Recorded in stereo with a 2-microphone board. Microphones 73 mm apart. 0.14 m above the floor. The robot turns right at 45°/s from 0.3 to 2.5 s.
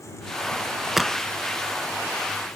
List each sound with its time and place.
1.0 s a crack: 5° right (ahead or behind); by 1.2 s 15° right (ahead or behind)